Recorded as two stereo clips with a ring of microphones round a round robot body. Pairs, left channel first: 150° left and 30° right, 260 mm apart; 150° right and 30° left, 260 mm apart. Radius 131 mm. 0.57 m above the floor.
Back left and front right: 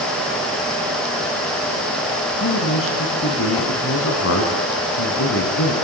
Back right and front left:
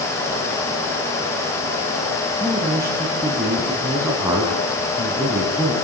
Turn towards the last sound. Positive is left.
turn(degrees=110)